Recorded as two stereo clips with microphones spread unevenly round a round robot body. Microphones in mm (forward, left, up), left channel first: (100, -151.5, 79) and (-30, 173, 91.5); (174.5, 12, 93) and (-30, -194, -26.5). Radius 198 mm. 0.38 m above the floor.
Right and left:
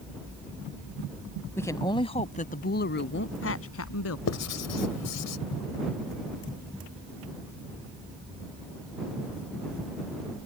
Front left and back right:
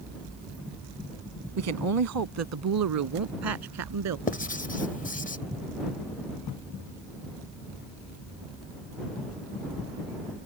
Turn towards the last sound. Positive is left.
turn(degrees=-30)